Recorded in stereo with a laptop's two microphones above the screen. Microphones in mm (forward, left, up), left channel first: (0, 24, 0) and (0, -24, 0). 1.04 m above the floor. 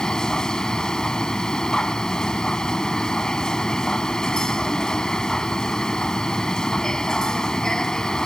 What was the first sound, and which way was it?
A machine running, 10° left (ahead or behind).